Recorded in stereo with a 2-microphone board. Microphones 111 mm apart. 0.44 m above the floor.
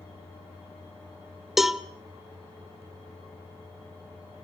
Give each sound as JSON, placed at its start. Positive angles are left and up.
{"t": 1.6, "sound": "a cowbell", "side_deg": -5, "distance_m": 0.9}